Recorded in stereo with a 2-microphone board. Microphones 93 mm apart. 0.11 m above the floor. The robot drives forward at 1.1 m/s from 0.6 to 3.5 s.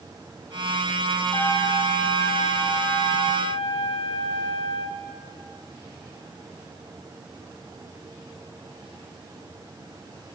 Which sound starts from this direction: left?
A trumpet, at 1.3 s.